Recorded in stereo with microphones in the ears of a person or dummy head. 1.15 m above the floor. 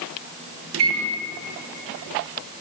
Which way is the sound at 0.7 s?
70° right (ahead or behind).